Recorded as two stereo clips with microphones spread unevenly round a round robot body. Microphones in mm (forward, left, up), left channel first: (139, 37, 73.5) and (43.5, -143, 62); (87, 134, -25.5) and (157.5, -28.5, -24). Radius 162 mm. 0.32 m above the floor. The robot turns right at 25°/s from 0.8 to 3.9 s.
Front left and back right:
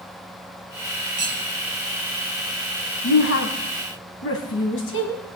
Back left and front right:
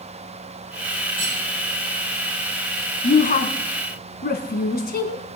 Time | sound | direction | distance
1.2 | cutlery clinking | 70° right | 6.5 m
3.0 | a woman speaking | 65° left | 2.5 m